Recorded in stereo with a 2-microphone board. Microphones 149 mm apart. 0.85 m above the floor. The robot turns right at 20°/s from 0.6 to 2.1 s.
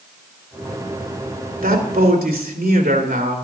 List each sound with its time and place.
1.6 s a man speaking: 80° right, 2.5 m